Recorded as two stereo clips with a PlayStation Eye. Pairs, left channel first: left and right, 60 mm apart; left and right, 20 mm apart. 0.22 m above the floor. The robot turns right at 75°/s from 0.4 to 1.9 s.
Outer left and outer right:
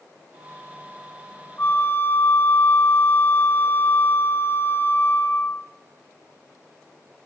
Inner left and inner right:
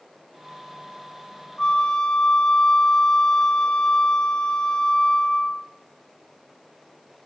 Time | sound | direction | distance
1.6 | a flute | 35° left (ahead or behind) | 1.2 m